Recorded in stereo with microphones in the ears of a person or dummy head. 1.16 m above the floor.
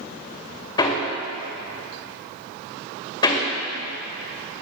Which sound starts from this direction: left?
Hammering, at 0.8 s.